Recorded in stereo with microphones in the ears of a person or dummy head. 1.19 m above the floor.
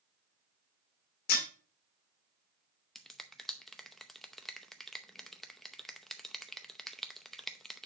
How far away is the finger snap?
About 0.6 m.